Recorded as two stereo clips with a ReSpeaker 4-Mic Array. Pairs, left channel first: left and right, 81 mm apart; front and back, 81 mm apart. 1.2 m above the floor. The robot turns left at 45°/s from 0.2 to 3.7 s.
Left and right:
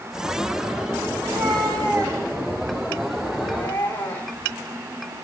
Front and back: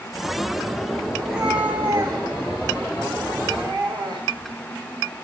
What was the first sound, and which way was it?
A cat meowing, 90° right.